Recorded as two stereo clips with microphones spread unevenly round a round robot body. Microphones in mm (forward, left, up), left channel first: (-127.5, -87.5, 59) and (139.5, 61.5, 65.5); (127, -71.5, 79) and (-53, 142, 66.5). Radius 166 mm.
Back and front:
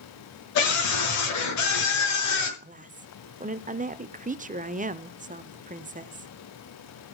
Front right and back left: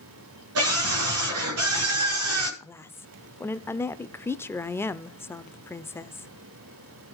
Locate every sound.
0.6 s a scream: 170° left, 6.5 m
2.6 s a woman speaking: 25° left, 0.9 m